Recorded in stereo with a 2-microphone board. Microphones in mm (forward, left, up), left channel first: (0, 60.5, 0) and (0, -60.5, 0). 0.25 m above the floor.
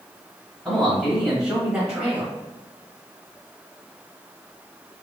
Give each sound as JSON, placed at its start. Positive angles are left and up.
{"t": 0.7, "sound": "a man speaking", "side_deg": 0, "distance_m": 1.5}